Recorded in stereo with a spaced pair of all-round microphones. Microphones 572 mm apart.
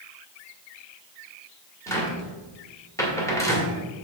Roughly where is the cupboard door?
Centre.